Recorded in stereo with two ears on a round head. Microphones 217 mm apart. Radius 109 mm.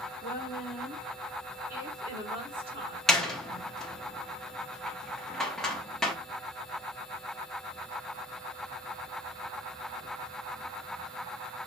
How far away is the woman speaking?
About 1.7 m.